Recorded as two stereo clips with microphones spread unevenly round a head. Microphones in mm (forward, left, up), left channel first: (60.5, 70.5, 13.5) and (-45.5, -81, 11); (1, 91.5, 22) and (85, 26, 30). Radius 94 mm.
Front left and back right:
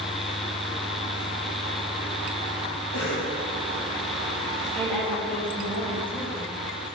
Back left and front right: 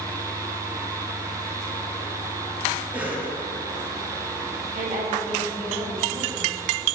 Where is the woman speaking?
25° right, 3 m.